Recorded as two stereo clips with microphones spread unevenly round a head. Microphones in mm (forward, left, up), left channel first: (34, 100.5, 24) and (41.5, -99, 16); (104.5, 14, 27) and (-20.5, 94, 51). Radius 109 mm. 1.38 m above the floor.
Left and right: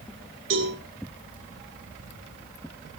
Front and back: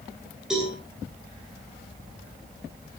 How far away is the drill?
I don't hear a drill.